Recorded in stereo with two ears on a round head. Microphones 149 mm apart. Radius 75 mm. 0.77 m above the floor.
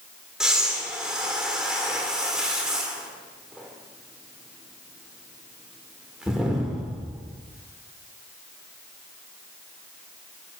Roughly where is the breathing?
Centre.